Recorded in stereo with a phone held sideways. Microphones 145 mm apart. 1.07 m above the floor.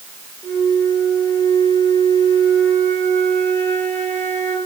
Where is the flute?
15° left (ahead or behind), 3.5 m.